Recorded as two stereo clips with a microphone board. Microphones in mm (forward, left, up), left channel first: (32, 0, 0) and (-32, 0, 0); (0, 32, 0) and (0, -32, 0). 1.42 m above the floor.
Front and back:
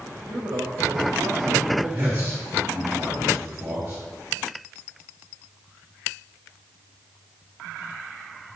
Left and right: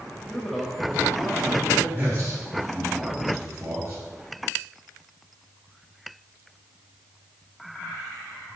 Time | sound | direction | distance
0.3 | a man speaking | 170° left | 1.3 m
1.9 | a man speaking | 135° right | 3 m